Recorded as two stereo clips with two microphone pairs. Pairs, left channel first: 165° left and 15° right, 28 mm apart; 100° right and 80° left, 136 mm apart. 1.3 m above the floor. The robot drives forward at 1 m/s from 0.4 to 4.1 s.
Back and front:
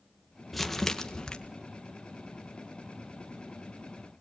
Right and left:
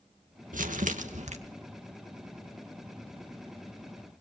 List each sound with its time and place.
0.5 s crumpling: 80° left, 1.5 m; by 1.4 s 110° left, 1.6 m